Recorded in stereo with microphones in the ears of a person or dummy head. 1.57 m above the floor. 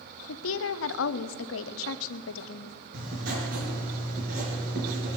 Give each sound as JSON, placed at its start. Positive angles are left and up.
{"t": 0.3, "sound": "a woman speaking", "side_deg": 80, "distance_m": 0.7}
{"t": 2.9, "sound": "writing", "side_deg": -55, "distance_m": 5.0}